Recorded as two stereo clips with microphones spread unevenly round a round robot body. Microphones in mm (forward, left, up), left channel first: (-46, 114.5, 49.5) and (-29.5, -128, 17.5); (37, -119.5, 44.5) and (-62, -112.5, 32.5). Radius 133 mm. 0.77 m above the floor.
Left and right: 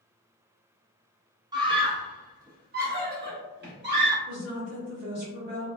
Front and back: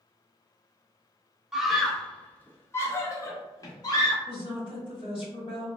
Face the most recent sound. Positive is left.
turn(degrees=-35)